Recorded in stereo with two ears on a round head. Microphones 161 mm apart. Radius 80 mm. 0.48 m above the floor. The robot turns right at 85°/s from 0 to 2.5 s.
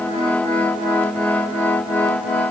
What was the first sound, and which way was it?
Only background noise.